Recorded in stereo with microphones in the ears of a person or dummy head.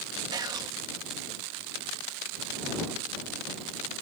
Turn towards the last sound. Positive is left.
turn(degrees=-20)  # may be behind; listen again after turning